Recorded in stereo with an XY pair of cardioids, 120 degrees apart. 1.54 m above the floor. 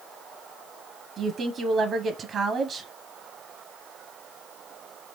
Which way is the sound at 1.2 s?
50° right.